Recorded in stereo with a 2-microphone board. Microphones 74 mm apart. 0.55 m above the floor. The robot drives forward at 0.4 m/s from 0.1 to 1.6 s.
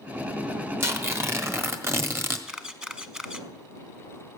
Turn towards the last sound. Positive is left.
turn(degrees=-10)  # may be behind; listen again after turning